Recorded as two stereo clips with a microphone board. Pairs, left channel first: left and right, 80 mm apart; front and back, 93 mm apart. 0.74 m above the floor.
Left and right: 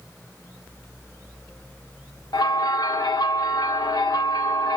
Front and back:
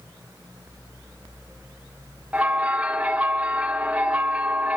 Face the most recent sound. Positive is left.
turn(degrees=105)